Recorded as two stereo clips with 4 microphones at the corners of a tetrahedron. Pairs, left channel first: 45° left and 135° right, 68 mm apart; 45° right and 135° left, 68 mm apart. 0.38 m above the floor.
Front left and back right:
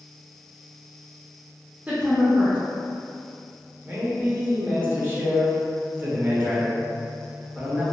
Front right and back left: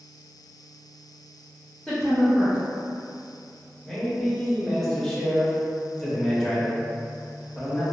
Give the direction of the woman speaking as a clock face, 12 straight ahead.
4 o'clock.